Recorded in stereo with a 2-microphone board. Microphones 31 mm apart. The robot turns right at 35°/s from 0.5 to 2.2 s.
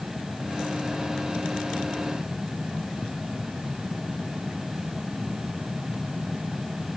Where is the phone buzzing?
I don't hear a phone buzzing.